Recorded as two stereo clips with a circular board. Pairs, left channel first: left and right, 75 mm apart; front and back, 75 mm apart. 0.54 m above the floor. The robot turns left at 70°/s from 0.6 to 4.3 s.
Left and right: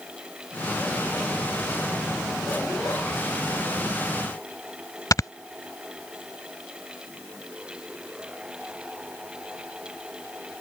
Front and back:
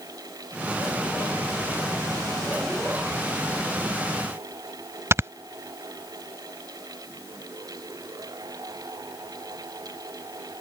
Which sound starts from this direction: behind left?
Snoring, at 5.1 s.